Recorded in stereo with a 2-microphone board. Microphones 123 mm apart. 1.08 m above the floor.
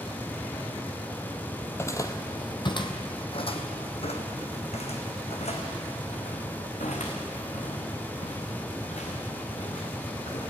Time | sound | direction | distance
1.6 | footsteps | 20° left (ahead or behind) | 1.2 m